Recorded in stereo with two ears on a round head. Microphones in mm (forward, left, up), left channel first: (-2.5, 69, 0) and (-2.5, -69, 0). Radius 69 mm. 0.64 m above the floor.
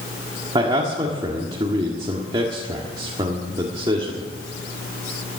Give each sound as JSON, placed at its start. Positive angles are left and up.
{"t": 0.6, "sound": "a man speaking", "side_deg": -30, "distance_m": 1.6}